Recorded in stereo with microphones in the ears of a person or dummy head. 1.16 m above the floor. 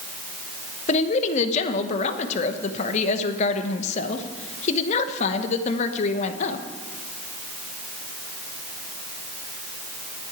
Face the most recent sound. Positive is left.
turn(degrees=40)  # may be behind; listen again after turning